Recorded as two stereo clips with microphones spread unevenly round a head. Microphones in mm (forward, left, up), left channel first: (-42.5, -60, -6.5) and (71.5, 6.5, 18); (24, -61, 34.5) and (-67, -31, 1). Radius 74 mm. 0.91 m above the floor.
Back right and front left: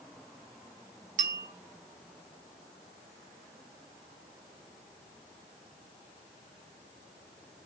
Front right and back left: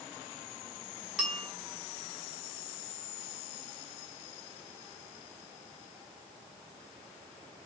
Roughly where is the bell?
Left.